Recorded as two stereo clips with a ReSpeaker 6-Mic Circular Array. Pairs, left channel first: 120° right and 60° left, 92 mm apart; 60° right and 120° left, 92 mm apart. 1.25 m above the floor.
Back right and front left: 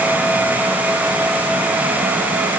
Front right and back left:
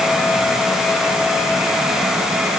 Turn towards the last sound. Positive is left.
No sound to turn to.